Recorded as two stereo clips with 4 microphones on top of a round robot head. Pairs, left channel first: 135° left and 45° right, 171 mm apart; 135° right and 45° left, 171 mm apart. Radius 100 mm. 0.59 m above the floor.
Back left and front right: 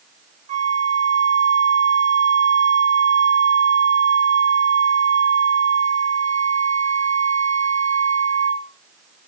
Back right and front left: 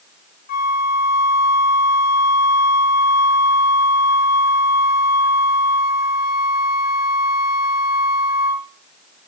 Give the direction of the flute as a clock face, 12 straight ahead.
3 o'clock.